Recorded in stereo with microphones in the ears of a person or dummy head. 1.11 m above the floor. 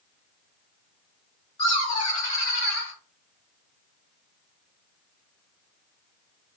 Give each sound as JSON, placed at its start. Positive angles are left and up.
{"t": 1.6, "sound": "laughter", "side_deg": 30, "distance_m": 1.8}